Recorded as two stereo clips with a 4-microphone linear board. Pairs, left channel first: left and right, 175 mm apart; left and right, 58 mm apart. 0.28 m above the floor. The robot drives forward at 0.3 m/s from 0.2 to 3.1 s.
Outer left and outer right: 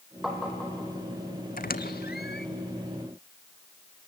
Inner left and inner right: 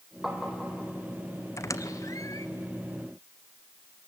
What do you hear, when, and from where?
0.2 s tapping: centre (ahead or behind), 3.5 m
1.6 s a squeak: 55° left (ahead or behind), 0.8 m; by 2.5 s 70° left (ahead or behind), 0.7 m